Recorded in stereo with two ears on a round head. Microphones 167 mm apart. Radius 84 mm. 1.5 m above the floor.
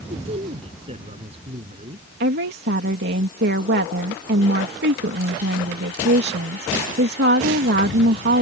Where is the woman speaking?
65° right (ahead or behind).